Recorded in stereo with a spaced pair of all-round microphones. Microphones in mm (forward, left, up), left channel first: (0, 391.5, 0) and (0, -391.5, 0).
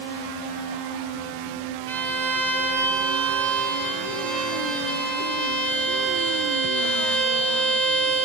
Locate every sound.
1.9 s a violin: 55° right (ahead or behind), 0.9 m